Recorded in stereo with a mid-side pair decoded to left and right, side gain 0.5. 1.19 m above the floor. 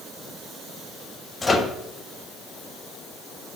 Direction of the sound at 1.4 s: 25° left.